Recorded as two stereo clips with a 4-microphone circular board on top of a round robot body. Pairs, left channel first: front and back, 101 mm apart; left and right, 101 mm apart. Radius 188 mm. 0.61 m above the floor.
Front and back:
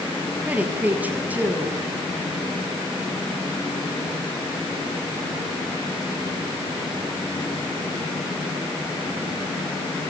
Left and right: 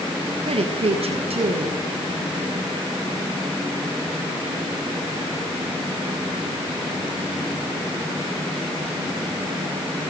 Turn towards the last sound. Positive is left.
turn(degrees=-105)